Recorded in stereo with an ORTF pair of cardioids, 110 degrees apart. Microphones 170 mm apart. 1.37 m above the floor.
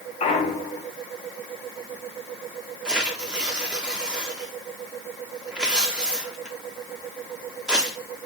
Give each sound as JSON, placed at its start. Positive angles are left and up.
{"t": 0.2, "sound": "a clunk", "azimuth_deg": 40, "distance_m": 1.3}
{"t": 2.9, "sound": "tearing paper", "azimuth_deg": -5, "distance_m": 1.4}